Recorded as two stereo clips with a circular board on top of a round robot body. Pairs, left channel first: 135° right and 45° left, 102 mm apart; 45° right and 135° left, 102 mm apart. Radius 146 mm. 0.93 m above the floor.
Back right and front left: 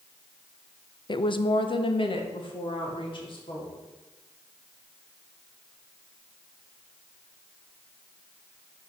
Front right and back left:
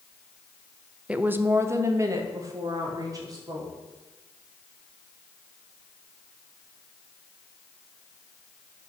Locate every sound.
1.1 s a woman speaking: 150° right, 0.8 m; by 3.7 s 170° right, 3 m